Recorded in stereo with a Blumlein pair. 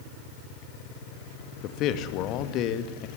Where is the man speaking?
35° left, 2 m.